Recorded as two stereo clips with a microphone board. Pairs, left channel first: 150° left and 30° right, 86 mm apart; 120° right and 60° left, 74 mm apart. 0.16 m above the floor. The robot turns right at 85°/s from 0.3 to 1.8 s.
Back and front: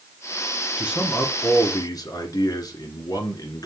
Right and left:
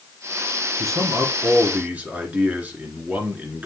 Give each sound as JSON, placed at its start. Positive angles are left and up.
{"t": 0.8, "sound": "a man speaking", "azimuth_deg": 35, "distance_m": 1.7}